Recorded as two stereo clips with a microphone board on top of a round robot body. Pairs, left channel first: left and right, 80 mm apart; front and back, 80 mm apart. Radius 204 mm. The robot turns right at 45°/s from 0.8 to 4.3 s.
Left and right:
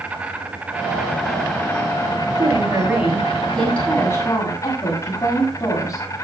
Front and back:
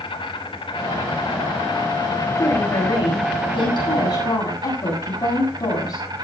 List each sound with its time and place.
0.0 s an insect: 15° right, 1.2 m; by 6.2 s 140° left, 1.2 m
2.4 s a woman speaking: 50° right, 8 m; by 6.0 s 40° left, 8 m